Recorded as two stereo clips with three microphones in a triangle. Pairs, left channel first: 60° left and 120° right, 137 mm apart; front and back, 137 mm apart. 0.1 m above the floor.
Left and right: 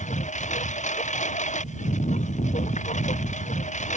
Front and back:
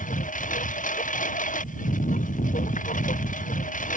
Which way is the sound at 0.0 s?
25° left.